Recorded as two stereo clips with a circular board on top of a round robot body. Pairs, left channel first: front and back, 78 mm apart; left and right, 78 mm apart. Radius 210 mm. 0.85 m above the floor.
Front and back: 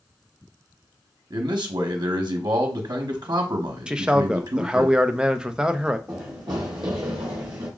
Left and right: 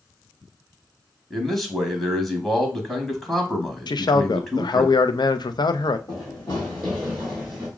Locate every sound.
1.3 s a man speaking: 175° left, 1.1 m
3.9 s a man speaking: 100° left, 0.6 m
6.1 s running footsteps: 85° left, 0.8 m; by 7.7 s 170° right, 1.1 m